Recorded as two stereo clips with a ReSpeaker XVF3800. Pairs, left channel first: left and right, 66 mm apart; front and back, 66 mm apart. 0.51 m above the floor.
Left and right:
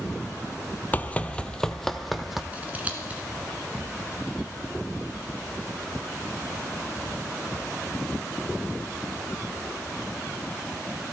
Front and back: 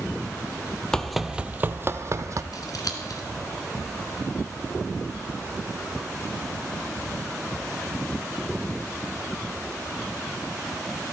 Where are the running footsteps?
70° left, 0.5 m; by 2.4 s 175° right, 0.8 m.